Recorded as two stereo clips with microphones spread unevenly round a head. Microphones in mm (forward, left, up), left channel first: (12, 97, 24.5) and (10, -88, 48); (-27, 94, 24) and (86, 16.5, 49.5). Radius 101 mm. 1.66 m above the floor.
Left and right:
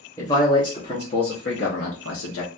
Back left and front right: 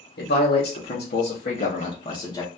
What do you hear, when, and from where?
0.2 s a man speaking: 170° left, 1.2 m; by 2.5 s 80° left, 0.9 m